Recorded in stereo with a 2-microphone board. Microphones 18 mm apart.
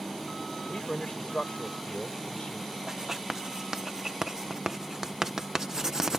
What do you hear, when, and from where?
0.7 s a man speaking: 90° left
2.9 s writing: 30° right (ahead or behind)